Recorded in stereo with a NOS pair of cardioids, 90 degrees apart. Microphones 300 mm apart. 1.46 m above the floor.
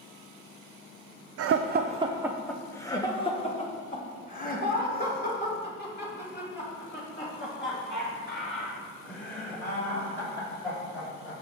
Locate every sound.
1.4 s laughter: 55° right, 0.5 m; by 11.3 s 40° left, 6 m